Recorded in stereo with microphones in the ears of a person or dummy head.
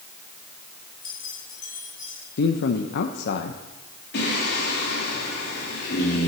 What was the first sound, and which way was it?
Keys jangling, 55° left (ahead or behind).